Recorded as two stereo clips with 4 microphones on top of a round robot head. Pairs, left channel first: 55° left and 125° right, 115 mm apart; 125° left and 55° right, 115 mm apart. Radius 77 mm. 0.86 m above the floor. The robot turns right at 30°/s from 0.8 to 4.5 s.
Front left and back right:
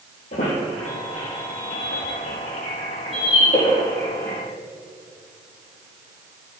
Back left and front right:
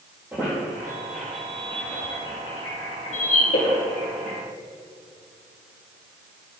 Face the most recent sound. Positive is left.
turn(degrees=130)